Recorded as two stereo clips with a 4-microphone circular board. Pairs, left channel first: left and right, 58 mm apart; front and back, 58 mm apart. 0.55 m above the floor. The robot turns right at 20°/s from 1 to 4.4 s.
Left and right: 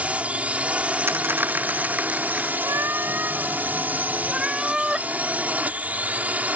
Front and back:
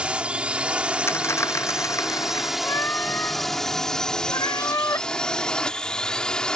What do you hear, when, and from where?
0.0 s a drone: 130° right; by 6.6 s 60° right
1.1 s a dropped coin: 40° right; by 2.5 s 15° right
2.6 s a cat meowing: 50° right; by 5.1 s 15° right